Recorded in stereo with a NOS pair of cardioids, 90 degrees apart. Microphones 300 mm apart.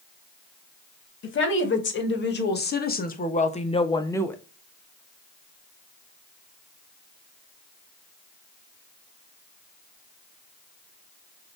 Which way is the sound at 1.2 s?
45° left.